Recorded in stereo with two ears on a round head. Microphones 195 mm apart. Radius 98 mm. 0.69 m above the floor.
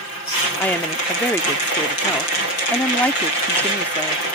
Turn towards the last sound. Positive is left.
turn(degrees=5)  # may be behind; listen again after turning